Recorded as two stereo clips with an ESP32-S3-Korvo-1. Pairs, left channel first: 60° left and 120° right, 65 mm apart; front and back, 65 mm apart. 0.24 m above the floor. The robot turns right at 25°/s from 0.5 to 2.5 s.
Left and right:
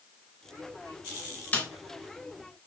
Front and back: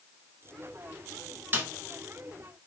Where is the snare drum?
125° left, 0.6 m.